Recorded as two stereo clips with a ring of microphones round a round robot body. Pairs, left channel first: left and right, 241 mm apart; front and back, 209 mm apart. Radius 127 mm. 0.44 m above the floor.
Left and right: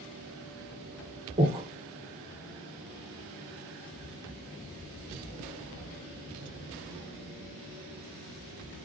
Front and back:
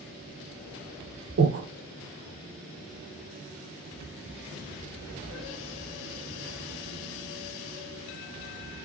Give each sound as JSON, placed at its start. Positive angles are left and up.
{"t": 1.4, "sound": "breathing", "azimuth_deg": -155, "distance_m": 1.5}